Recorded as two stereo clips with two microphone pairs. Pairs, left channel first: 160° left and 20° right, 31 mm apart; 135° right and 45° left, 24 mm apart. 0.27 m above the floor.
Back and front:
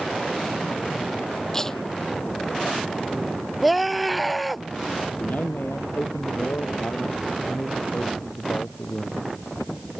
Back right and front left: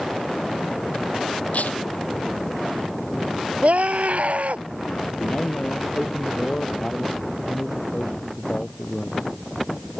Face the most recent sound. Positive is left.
turn(degrees=175)